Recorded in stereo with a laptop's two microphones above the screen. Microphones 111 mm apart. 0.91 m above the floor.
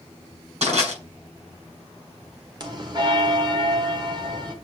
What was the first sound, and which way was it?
Crushing, 65° right (ahead or behind).